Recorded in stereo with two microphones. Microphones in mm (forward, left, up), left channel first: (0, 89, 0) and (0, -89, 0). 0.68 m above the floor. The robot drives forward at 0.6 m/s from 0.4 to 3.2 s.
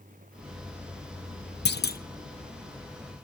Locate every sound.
1.6 s a clunk: 70° left (ahead or behind), 0.6 m; by 2.0 s 55° left (ahead or behind), 0.7 m